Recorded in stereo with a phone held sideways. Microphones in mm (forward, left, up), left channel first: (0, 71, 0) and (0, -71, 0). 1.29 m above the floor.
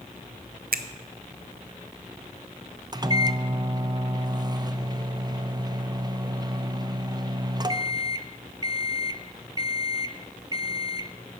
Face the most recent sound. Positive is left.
turn(degrees=-25)  # may be behind; listen again after turning